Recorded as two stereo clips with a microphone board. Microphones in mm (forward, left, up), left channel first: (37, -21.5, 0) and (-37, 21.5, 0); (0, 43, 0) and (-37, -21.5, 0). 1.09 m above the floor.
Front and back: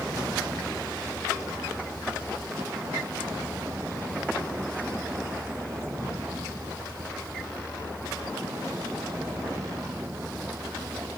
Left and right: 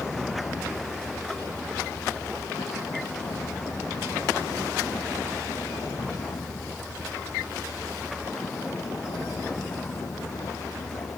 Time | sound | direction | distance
0.0 | a vehicle | 95° left | ?